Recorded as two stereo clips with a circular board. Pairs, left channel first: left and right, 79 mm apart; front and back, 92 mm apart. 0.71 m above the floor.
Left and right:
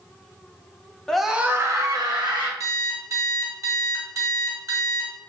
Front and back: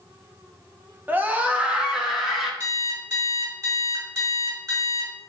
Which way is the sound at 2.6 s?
135° right.